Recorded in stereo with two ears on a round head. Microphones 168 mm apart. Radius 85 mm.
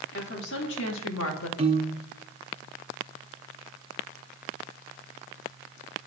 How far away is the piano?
About 0.7 m.